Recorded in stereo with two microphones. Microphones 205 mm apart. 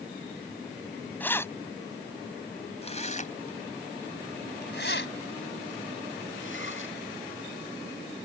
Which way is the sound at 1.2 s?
10° left (ahead or behind).